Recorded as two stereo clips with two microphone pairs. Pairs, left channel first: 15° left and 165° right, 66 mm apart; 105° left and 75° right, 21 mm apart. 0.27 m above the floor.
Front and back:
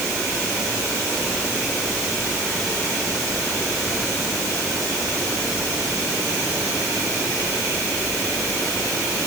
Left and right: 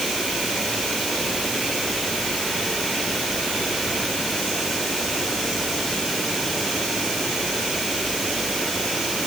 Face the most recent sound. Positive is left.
No sound to turn to.